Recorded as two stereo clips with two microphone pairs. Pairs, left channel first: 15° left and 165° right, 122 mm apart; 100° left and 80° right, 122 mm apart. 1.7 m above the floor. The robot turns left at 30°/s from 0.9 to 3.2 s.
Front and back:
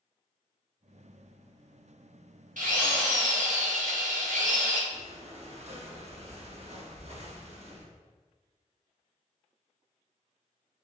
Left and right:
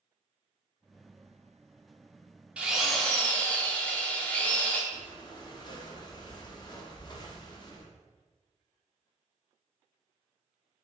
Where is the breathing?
160° left, 0.6 m.